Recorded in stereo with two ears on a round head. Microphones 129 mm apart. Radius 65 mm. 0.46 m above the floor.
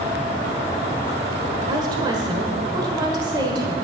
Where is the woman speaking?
30° right (ahead or behind), 1.4 m.